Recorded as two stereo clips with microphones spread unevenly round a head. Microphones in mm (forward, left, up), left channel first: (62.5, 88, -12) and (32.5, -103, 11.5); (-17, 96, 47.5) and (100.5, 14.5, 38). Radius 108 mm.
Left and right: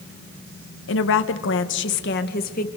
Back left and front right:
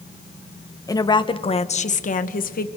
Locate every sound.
0.9 s a woman speaking: 80° left, 1.4 m; by 2.7 s 135° left, 1.6 m